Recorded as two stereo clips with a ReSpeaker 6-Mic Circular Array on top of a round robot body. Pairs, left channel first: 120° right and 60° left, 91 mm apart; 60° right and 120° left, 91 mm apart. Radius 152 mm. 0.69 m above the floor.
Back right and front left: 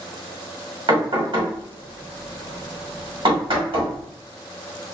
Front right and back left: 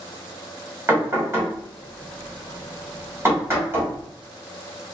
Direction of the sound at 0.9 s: 60° left.